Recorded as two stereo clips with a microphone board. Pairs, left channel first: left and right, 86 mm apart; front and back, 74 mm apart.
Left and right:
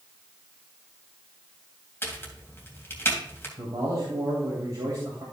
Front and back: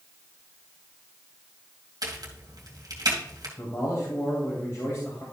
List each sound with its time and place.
2.0 s a crack: 150° left, 2.5 m
3.6 s a man speaking: 50° right, 2.5 m